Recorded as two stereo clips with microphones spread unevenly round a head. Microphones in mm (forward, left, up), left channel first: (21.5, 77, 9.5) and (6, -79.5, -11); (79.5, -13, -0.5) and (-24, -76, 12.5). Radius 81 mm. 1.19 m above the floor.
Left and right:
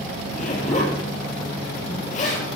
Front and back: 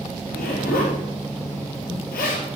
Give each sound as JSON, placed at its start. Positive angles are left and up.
{"t": 0.2, "sound": "a zipper", "azimuth_deg": 45, "distance_m": 4.5}